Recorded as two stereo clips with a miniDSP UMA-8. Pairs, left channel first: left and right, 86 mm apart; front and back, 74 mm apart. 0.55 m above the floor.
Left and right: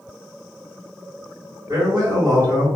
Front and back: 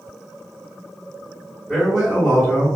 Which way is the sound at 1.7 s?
105° right.